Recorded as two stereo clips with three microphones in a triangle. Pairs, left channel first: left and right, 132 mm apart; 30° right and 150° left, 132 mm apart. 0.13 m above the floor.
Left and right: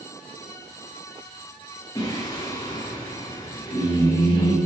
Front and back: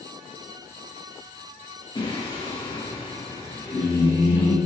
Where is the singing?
30° left, 9 m.